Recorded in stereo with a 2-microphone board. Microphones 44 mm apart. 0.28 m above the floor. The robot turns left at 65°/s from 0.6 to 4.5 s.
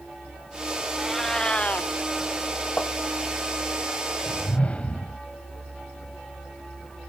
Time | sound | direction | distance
1.0 | a cat meowing | 170° right | ?
2.8 | tapping | 45° left (ahead or behind) | ?
4.3 | a whoosh | 40° left (ahead or behind) | ?